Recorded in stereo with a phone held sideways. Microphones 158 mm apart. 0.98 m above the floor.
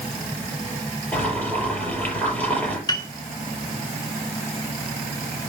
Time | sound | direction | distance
1.1 | boiling | 10° left (ahead or behind) | 5.5 m
2.9 | a piano | 25° left (ahead or behind) | 1.5 m